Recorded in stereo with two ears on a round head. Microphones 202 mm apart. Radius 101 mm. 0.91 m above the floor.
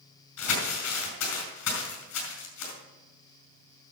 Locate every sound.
0.4 s crumpling: 85° left, 4 m